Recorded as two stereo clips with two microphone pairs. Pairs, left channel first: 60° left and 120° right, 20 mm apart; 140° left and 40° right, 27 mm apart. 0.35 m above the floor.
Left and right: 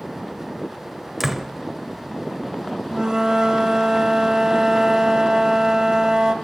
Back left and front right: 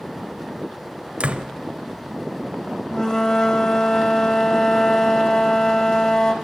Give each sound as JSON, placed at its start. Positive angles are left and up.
{"t": 1.2, "sound": "a door slam", "azimuth_deg": -40, "distance_m": 0.8}
{"t": 2.9, "sound": "a flute", "azimuth_deg": -160, "distance_m": 0.9}